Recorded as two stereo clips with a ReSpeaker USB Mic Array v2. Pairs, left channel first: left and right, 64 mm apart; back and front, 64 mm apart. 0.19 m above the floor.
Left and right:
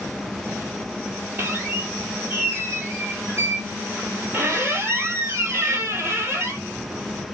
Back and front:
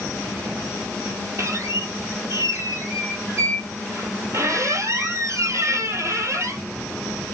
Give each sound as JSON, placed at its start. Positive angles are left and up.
{"t": 1.4, "sound": "a squeak", "azimuth_deg": -40, "distance_m": 2.0}